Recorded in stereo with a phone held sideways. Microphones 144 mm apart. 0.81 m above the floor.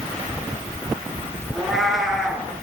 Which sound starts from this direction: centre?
A cat meowing, at 1.5 s.